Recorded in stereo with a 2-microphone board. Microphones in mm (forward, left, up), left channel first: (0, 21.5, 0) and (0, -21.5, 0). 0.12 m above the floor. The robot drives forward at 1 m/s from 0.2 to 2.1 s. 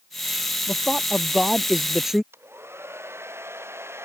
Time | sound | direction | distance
0.7 | a man speaking | 5° right (ahead or behind) | ?
2.3 | a hair dryer | 75° right (ahead or behind) | ?